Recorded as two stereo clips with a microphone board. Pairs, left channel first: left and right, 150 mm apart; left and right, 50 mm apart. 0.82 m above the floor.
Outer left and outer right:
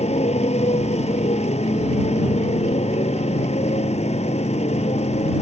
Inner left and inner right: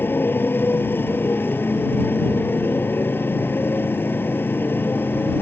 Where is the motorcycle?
45° left (ahead or behind).